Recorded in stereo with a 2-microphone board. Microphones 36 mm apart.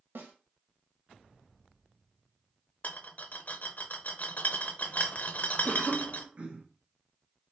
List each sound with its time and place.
0.1 s a snare drum: 80° right, 1.1 m
2.8 s a rattle: 50° left (ahead or behind), 0.6 m
5.7 s a cough: 35° right (ahead or behind), 0.9 m